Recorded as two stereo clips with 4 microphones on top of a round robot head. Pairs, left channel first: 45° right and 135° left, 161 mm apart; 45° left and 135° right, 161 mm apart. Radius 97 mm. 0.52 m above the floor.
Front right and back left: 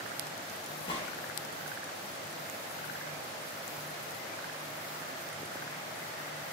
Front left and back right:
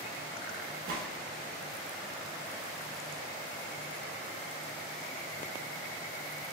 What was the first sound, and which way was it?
A gunshot, 105° right.